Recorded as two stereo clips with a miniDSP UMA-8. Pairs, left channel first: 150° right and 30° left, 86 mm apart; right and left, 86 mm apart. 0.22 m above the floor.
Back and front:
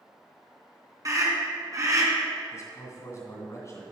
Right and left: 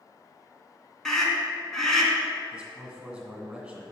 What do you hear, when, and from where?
1.1 s a scream: 5° right, 2.5 m
2.5 s a man speaking: 170° left, 2.5 m